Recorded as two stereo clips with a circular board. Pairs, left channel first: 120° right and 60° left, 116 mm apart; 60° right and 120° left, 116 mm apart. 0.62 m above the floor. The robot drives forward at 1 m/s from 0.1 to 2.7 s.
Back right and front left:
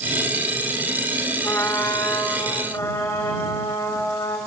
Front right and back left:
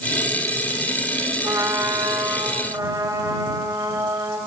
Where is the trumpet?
175° left, 1.5 m; by 4.4 s straight behind, 2.5 m.